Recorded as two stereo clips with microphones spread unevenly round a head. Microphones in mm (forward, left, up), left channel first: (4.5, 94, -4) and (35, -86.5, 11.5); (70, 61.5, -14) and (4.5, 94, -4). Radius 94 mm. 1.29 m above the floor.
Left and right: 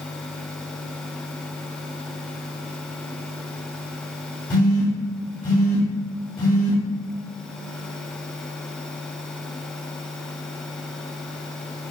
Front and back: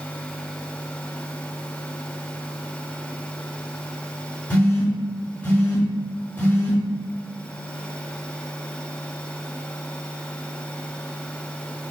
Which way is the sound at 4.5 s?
35° left.